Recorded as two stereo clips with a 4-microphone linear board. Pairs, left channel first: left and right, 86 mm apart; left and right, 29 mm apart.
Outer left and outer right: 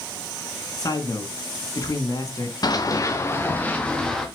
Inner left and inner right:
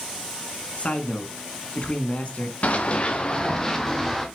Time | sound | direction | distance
0.8 | a man speaking | 45° left (ahead or behind) | 2 m
2.6 | running footsteps | 50° left (ahead or behind) | 1.7 m